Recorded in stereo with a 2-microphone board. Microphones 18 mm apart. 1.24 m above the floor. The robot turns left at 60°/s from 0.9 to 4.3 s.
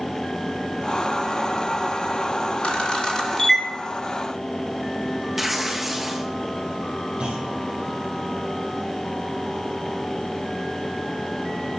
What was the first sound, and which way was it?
A camera shutter, 60° left (ahead or behind).